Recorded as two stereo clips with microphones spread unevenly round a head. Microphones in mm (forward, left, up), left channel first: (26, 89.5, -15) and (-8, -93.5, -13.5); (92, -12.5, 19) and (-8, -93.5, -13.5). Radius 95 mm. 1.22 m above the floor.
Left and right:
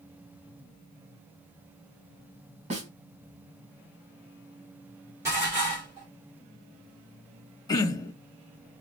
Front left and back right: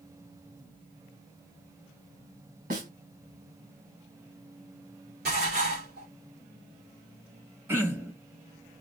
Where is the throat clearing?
130° left, 1.1 m.